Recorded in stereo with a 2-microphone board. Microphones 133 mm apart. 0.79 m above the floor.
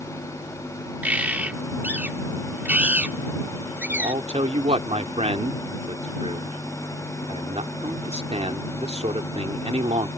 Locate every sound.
1.0 s a bird: 10° right (ahead or behind)
3.9 s a man speaking: 55° right (ahead or behind)